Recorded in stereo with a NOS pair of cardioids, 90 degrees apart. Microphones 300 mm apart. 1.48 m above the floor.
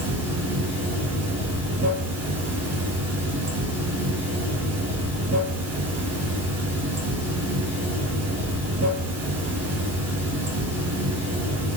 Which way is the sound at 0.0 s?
60° right.